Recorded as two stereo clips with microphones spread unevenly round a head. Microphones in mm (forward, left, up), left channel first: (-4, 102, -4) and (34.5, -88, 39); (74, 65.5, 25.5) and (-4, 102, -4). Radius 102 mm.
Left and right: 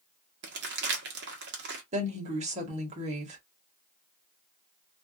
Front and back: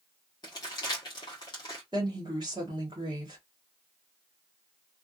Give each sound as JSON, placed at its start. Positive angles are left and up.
{"t": 0.4, "sound": "crumpling", "azimuth_deg": -65, "distance_m": 1.0}
{"t": 1.9, "sound": "a woman speaking", "azimuth_deg": -130, "distance_m": 1.1}